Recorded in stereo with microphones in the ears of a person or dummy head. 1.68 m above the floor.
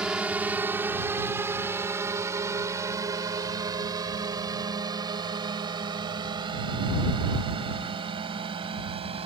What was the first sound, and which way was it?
A drone, 10° right (ahead or behind).